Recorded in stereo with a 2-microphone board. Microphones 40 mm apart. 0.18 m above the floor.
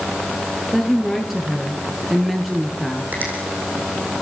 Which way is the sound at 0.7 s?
Centre (ahead or behind).